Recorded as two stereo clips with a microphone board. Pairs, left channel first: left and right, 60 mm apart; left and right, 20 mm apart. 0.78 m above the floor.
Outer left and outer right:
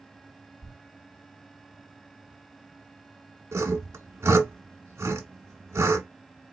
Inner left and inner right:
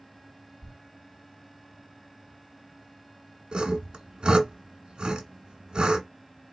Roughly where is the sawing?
Right.